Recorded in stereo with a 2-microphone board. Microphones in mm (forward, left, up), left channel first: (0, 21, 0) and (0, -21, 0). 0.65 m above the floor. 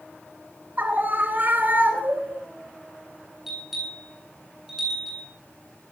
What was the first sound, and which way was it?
A scream, 45° right (ahead or behind).